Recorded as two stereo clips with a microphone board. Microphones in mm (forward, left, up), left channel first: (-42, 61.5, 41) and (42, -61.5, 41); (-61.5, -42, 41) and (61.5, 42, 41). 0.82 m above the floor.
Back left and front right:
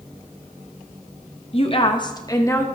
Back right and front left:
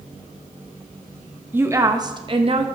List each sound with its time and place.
1.5 s a woman speaking: 105° left, 1.0 m; by 2.6 s 60° left, 1.1 m